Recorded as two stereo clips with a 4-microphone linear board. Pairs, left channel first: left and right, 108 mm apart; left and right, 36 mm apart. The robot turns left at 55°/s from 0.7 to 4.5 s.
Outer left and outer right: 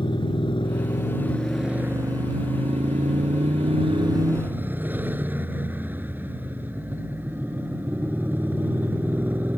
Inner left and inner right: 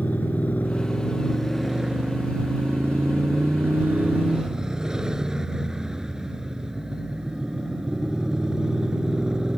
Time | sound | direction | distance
0.0 | a motorcycle | 45° left | ?